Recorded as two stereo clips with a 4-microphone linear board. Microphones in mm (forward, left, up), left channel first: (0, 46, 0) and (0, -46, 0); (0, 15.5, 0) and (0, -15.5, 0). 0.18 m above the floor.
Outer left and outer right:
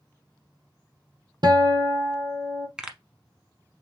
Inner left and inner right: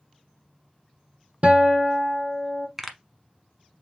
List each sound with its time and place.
1.4 s a guitar: 55° right (ahead or behind), 0.9 m
2.8 s a pop: 10° right (ahead or behind), 0.9 m